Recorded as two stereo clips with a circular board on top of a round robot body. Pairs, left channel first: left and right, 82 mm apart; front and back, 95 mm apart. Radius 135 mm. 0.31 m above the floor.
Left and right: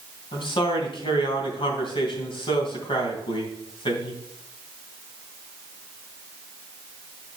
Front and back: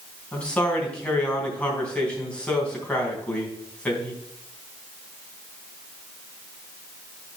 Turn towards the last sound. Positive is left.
turn(degrees=80)